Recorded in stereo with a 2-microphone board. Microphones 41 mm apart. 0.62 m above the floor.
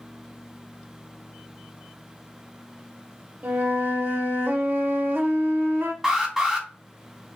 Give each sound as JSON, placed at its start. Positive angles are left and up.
{"t": 3.4, "sound": "a flute", "side_deg": -65, "distance_m": 0.5}
{"t": 6.0, "sound": "an alarm", "side_deg": -10, "distance_m": 1.6}